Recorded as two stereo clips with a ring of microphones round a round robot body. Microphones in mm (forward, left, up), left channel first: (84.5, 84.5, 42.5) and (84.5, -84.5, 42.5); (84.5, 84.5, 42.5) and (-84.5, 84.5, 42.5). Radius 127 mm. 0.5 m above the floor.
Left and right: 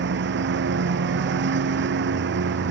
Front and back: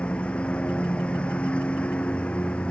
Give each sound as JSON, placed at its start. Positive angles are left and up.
{"t": 0.0, "sound": "a lawn mower", "azimuth_deg": -85}